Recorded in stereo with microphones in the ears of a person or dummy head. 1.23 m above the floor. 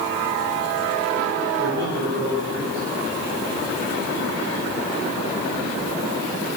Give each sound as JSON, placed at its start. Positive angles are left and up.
{"t": 1.6, "sound": "a man speaking", "side_deg": -75, "distance_m": 4.5}